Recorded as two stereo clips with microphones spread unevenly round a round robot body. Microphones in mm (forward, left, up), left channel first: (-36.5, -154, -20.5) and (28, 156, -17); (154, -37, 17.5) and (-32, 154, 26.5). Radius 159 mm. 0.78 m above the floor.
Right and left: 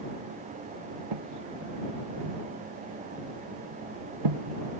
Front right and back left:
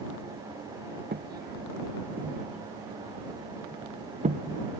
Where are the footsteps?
80° left; by 4.6 s 65° left.